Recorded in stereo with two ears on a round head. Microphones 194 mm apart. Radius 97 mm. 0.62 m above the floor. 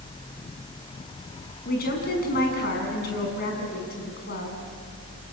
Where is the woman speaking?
45° left (ahead or behind), 6 m.